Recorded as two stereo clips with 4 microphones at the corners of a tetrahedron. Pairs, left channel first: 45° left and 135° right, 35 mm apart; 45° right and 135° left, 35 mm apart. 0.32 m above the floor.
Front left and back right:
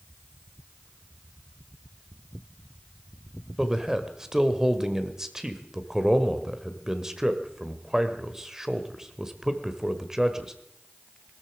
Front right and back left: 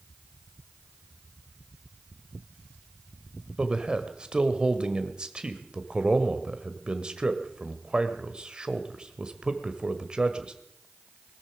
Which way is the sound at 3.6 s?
165° left.